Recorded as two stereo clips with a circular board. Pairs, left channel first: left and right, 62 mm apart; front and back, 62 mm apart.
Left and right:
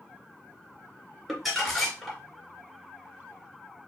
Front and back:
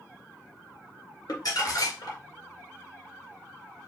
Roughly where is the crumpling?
Ahead.